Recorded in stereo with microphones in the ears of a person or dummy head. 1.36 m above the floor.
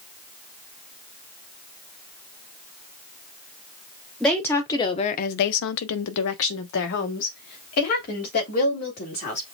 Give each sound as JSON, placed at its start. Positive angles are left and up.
{"t": 4.2, "sound": "a woman speaking", "side_deg": 5, "distance_m": 0.9}